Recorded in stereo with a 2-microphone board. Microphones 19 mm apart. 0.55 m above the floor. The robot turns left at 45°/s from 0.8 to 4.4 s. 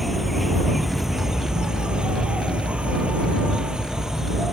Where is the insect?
Straight ahead; by 4.5 s 165° right.